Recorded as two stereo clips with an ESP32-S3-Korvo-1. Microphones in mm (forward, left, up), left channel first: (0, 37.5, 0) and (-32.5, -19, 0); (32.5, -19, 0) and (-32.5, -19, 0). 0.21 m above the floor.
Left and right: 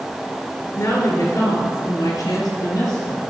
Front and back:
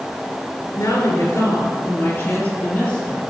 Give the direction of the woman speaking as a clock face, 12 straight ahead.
11 o'clock.